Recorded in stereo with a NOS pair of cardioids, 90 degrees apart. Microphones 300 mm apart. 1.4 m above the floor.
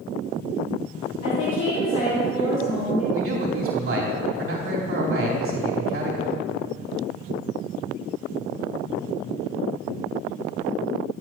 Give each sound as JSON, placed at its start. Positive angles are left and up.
{"t": 1.2, "sound": "a woman speaking", "azimuth_deg": 55, "distance_m": 4.0}
{"t": 3.1, "sound": "a man speaking", "azimuth_deg": -45, "distance_m": 3.5}